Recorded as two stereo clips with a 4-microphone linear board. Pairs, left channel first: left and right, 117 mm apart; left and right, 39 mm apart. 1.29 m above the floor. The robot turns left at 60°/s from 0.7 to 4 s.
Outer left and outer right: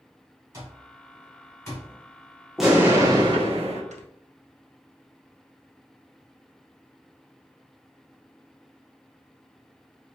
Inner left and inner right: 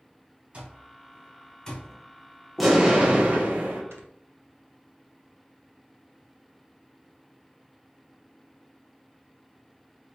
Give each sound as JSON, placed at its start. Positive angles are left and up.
{"t": 0.5, "sound": "an alarm clock", "side_deg": -30, "distance_m": 1.9}
{"t": 2.6, "sound": "an explosion", "azimuth_deg": 0, "distance_m": 1.2}
{"t": 3.9, "sound": "snoring", "side_deg": -85, "distance_m": 0.7}